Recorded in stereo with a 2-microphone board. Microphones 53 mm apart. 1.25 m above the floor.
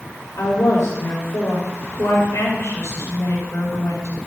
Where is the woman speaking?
85° left, 5.5 m.